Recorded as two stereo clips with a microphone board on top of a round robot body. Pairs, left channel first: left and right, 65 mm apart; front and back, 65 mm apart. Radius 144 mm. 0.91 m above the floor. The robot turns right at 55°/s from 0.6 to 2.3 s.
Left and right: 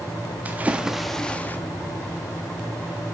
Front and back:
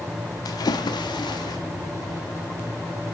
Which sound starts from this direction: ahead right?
A splash, at 0.5 s.